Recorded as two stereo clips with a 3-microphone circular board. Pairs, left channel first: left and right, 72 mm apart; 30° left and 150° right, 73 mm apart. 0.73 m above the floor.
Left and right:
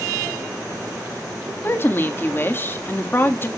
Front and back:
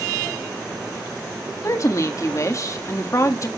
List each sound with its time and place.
1.6 s a woman speaking: 45° left, 1.4 m